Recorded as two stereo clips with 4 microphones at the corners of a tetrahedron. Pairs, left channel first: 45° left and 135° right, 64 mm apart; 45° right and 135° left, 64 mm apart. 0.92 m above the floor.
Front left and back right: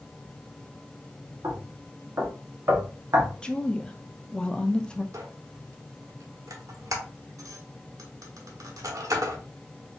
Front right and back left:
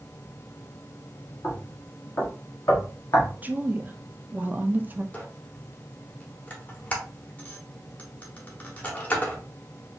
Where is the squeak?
110° right, 0.9 m.